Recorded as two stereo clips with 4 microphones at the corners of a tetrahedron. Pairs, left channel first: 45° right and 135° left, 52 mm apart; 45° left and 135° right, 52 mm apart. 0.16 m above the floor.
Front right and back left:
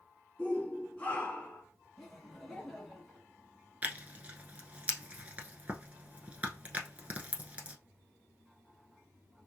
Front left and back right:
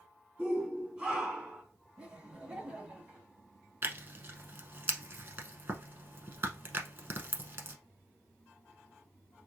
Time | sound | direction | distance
0.4 | a shout | 75° right | 1.9 m
2.0 | laughter | 125° right | 1.2 m
3.8 | tearing paper | 170° right | 0.8 m